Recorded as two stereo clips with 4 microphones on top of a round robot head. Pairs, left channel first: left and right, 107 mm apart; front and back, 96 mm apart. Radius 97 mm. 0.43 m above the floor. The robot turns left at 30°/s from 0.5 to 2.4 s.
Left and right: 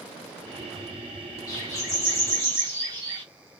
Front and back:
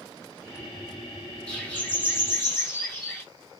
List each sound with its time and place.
1.5 s a bird: 70° left, 1.5 m; by 3.2 s 40° left, 1.5 m